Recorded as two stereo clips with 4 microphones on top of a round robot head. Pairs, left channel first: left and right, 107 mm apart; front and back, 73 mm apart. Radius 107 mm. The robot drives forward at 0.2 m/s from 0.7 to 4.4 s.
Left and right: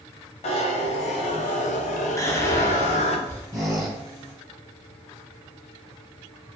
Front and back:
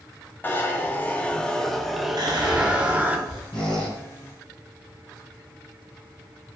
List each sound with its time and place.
0.4 s a zipper: 65° left, 0.6 m; by 3.2 s 110° left, 0.6 m
2.2 s whispering: 155° left, 1.0 m; by 3.4 s 160° left, 1.2 m
3.5 s a squeak: 25° right, 1.3 m; by 4.0 s 30° right, 1.3 m